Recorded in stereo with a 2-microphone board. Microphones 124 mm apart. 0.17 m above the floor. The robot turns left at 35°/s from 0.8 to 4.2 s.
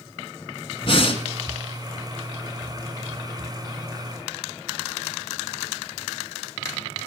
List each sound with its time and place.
0.8 s breathing: 45° left (ahead or behind), 1.3 m